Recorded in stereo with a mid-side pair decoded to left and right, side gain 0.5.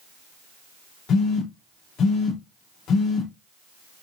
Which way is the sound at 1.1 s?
60° left.